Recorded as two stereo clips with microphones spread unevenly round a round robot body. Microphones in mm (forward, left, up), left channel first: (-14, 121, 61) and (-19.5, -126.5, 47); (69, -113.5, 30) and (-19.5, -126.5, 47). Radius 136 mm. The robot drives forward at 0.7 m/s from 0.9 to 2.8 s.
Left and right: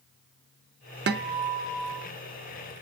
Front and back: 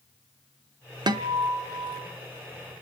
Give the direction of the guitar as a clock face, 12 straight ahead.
5 o'clock.